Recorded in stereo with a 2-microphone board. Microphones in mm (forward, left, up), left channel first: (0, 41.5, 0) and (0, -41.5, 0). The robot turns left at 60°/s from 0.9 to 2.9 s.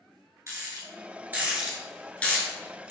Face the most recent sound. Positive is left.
turn(degrees=40)  # may be behind; listen again after turning